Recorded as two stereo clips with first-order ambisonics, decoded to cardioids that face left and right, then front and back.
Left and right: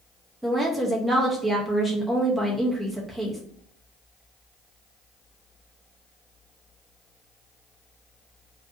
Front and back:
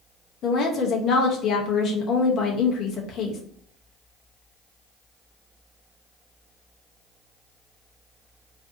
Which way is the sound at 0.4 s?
10° right.